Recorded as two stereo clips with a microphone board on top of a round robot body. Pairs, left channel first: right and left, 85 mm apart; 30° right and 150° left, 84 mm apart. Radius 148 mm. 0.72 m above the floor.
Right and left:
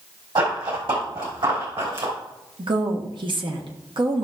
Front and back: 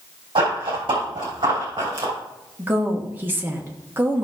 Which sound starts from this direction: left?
A woman speaking, at 2.6 s.